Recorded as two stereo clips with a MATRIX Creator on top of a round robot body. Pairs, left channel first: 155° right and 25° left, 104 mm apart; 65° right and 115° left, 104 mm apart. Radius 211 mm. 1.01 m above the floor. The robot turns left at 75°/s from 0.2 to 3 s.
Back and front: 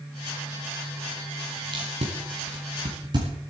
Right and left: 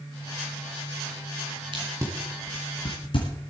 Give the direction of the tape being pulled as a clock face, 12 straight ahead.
10 o'clock.